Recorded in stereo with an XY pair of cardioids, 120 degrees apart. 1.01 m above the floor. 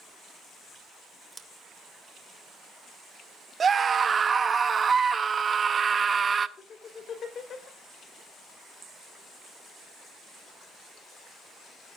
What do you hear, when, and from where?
1.3 s scissors: 20° right, 1.8 m
3.6 s a scream: 35° right, 0.9 m
6.6 s laughter: 45° left, 3.5 m